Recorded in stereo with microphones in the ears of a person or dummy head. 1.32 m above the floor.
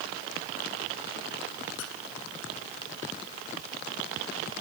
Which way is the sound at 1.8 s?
80° left.